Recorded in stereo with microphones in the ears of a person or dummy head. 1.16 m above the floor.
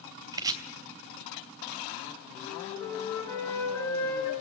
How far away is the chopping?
About 2.5 m.